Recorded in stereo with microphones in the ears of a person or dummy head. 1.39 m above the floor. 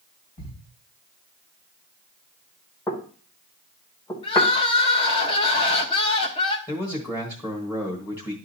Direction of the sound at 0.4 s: 45° left (ahead or behind).